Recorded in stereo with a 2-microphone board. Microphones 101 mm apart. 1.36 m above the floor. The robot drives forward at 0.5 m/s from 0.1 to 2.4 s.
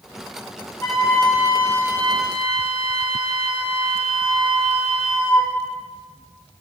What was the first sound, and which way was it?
A flute, 20° left (ahead or behind).